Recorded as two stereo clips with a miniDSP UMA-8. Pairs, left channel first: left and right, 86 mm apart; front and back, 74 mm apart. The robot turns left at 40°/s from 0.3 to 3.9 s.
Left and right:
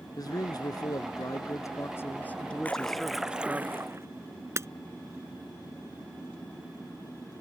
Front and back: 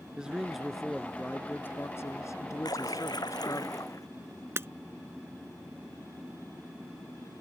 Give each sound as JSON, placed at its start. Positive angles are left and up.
{"t": 0.2, "sound": "a man speaking", "azimuth_deg": 105}
{"t": 2.6, "sound": "a splash", "azimuth_deg": 20}
{"t": 4.6, "sound": "breaking glass", "azimuth_deg": -135}